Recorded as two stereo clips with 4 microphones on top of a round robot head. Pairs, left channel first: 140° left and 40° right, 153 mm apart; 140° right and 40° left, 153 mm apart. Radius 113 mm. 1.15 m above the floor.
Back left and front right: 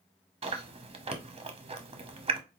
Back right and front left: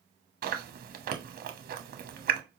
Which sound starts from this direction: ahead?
Chewing, at 0.4 s.